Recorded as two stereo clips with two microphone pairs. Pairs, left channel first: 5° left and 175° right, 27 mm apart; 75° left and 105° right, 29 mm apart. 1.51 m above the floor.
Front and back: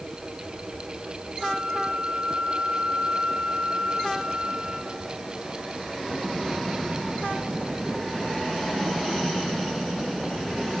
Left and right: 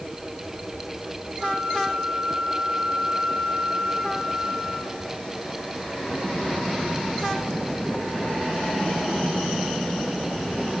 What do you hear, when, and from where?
1.4 s a flute: 140° right, 9.5 m